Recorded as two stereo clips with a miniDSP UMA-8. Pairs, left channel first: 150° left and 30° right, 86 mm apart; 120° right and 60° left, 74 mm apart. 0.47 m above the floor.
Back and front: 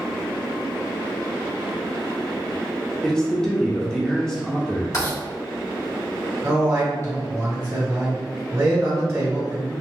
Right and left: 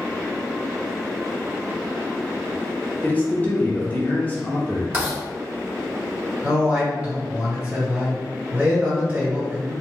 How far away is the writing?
About 1.8 m.